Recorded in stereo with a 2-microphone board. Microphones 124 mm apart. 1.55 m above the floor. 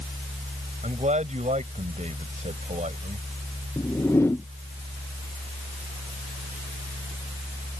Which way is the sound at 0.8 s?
60° right (ahead or behind).